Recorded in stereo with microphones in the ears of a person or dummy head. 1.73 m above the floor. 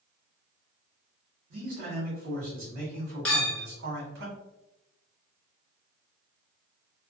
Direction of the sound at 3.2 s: 10° left (ahead or behind).